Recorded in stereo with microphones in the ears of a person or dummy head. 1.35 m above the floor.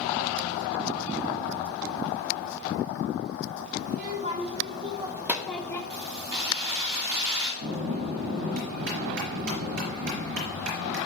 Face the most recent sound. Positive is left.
turn(degrees=-60)  # may be behind; listen again after turning